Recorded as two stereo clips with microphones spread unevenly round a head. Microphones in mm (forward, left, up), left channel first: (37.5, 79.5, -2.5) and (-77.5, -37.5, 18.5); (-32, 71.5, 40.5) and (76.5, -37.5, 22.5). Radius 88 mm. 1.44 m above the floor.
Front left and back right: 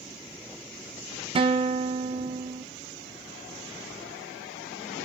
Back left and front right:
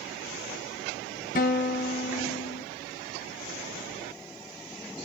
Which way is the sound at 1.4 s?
175° left.